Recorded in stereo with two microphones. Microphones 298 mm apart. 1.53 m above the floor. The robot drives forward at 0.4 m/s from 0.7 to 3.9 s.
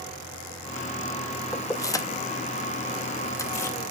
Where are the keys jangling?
10° left (ahead or behind), 0.7 m.